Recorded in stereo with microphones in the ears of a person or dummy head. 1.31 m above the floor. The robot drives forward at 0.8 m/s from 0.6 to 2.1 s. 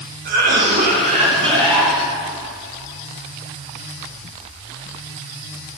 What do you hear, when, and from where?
0.2 s a cough: 45° right (ahead or behind), 1.3 m; by 1.9 s 25° right (ahead or behind), 2 m